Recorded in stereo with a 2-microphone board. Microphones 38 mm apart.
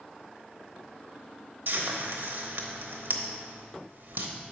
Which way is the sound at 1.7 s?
65° right (ahead or behind).